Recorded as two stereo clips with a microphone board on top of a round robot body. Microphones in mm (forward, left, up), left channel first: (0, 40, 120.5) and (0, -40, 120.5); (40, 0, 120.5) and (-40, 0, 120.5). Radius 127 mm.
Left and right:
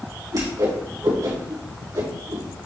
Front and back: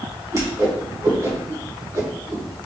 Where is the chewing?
I don't hear chewing.